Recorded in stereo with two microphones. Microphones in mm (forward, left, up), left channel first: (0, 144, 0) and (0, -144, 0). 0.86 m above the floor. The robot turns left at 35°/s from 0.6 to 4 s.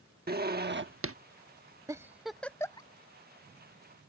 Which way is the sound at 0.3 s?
35° right (ahead or behind).